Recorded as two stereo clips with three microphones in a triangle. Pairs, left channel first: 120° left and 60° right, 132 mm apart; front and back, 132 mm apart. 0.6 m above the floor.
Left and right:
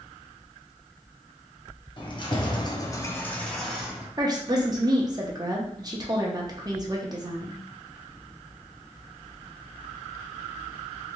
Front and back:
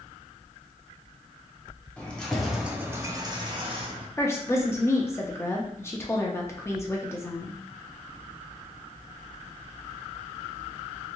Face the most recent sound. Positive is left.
turn(degrees=-50)